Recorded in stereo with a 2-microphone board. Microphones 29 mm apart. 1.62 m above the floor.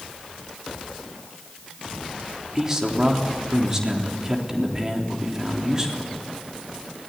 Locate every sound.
2.5 s a man speaking: 25° right (ahead or behind), 3.5 m